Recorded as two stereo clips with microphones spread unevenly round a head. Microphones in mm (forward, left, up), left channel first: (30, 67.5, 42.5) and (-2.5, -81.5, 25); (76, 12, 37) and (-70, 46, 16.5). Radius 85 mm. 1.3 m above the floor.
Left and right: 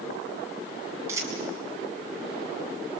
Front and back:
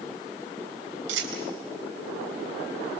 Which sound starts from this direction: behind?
A dropped coin, at 1.1 s.